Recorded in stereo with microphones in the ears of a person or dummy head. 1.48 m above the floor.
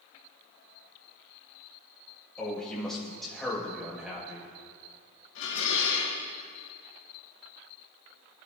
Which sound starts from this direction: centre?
A man speaking, at 2.4 s.